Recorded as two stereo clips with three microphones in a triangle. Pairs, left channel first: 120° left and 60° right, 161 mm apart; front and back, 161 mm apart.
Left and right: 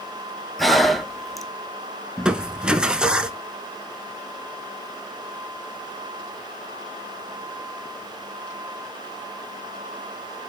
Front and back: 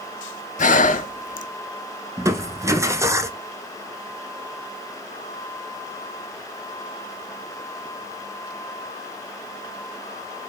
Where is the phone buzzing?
I don't hear a phone buzzing.